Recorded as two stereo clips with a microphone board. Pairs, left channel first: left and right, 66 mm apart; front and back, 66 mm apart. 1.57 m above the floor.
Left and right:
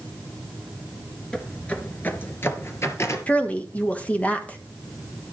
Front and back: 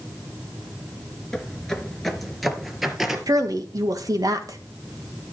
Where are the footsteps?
45° left, 1.6 m; by 3.2 s 95° left, 2 m.